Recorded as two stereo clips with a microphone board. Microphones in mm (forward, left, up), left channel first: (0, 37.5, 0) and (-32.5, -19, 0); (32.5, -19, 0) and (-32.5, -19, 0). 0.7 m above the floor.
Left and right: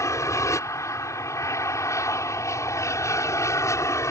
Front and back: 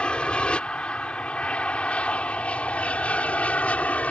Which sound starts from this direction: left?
An aircraft, at 0.0 s.